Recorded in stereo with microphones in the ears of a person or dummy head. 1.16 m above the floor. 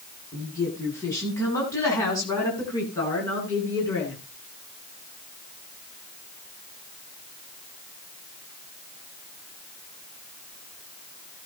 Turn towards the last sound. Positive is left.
turn(degrees=15)  # may be behind; listen again after turning